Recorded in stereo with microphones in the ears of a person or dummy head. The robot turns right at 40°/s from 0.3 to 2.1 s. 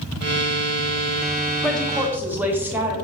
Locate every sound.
1.6 s a woman speaking: 10° left (ahead or behind), 0.6 m; by 3.0 s 5° right (ahead or behind), 0.6 m